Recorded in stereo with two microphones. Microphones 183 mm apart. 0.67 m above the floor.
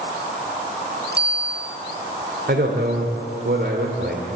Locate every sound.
1.1 s a bicycle bell: 70° right (ahead or behind), 6 m
2.5 s a man speaking: 70° right (ahead or behind), 2.5 m